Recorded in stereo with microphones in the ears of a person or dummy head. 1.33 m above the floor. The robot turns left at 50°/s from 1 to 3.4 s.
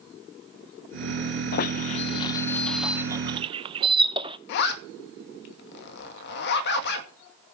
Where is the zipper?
60° left (ahead or behind), 2 m.